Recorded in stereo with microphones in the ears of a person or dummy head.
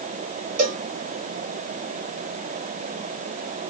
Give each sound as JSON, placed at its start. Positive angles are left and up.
{"t": 0.6, "sound": "a cowbell", "side_deg": -40, "distance_m": 1.0}